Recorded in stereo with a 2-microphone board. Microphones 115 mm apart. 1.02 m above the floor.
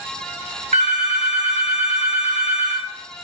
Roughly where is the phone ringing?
Right.